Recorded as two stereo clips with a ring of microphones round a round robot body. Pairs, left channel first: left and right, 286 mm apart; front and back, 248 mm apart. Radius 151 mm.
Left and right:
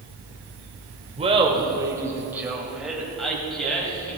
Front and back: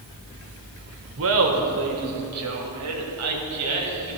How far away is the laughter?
About 1.8 m.